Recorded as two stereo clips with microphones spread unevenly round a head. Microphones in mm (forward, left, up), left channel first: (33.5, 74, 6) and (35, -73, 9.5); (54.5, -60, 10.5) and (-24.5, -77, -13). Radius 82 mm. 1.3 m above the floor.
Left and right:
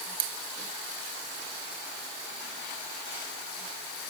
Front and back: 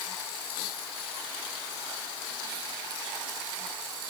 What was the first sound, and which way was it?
Only background noise.